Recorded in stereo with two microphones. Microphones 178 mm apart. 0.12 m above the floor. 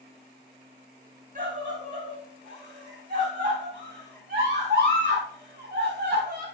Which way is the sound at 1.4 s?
45° right (ahead or behind).